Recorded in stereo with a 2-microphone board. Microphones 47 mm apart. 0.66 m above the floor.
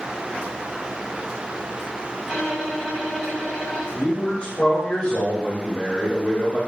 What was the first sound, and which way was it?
A violin, centre (ahead or behind).